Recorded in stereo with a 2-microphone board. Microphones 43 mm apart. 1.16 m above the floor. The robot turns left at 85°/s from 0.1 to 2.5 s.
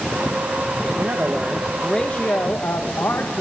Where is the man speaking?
115° right, 1.0 m; by 3.4 s 115° left, 1.0 m.